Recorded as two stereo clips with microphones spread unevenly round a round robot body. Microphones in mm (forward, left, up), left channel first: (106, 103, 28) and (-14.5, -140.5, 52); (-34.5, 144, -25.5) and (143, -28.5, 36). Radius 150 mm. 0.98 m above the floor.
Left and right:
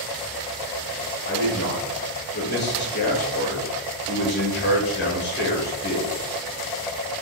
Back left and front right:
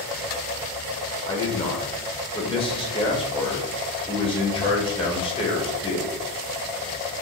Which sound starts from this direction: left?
A man speaking, at 1.2 s.